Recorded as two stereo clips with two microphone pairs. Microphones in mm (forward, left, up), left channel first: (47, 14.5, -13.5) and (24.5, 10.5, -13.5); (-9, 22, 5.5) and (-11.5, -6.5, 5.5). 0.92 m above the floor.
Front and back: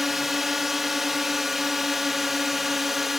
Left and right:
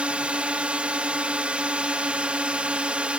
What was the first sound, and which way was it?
A drone, 95° right.